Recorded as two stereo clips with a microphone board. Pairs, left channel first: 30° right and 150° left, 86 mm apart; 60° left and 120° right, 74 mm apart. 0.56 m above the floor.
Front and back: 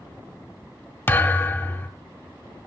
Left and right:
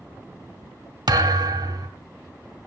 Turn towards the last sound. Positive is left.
turn(degrees=-95)